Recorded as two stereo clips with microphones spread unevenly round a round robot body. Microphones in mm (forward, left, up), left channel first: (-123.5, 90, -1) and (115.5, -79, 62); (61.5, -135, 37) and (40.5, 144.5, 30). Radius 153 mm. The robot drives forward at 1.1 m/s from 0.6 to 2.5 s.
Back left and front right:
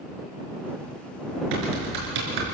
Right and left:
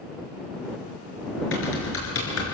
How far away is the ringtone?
I don't hear a ringtone.